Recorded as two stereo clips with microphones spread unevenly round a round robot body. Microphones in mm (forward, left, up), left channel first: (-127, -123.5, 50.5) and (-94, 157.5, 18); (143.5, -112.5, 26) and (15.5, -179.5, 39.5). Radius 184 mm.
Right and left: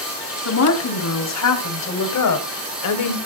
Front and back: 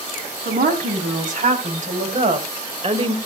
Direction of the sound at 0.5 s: 125° right.